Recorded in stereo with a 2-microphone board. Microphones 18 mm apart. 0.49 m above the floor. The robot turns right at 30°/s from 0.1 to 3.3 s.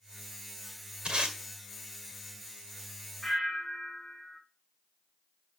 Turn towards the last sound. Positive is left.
turn(degrees=0)  # may be behind; listen again after turning